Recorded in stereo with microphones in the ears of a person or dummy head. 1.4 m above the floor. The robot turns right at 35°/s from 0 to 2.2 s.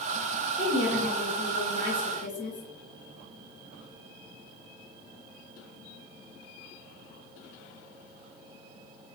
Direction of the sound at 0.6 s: 10° right.